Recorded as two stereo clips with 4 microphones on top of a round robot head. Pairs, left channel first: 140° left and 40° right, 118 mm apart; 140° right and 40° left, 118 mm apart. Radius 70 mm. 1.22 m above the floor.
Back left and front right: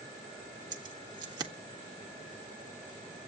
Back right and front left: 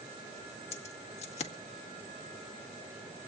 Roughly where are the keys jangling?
Right.